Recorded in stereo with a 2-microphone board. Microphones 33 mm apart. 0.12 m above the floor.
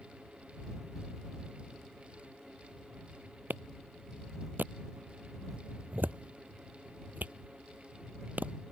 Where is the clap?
70° right (ahead or behind).